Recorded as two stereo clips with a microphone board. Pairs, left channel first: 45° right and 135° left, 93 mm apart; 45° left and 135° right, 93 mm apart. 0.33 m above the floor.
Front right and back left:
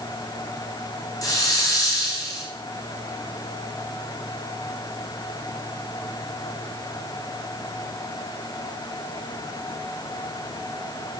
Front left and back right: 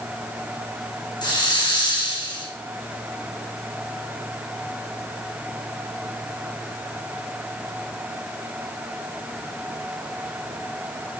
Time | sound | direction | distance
1.2 | a hiss | 5° left | 5.5 m